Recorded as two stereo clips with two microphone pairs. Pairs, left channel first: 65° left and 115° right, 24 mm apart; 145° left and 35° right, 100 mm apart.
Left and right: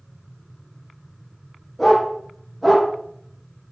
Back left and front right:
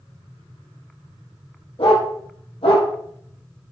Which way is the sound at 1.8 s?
155° left.